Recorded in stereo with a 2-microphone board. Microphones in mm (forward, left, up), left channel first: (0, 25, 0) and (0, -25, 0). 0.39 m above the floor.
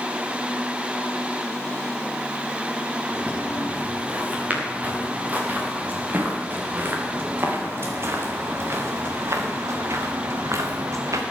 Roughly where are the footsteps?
Right.